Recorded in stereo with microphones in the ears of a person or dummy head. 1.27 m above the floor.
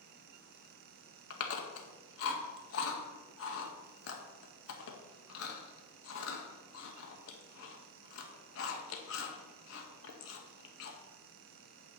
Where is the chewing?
75° left (ahead or behind), 1.8 m.